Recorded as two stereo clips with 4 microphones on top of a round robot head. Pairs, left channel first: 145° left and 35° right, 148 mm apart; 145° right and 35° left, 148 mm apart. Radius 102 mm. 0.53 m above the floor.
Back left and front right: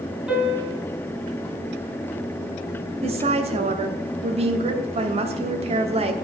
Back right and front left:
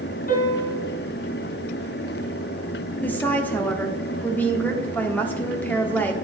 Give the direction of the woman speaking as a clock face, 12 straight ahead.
2 o'clock.